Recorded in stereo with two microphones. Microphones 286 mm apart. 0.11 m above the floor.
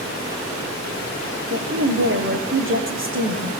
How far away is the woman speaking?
About 5.5 m.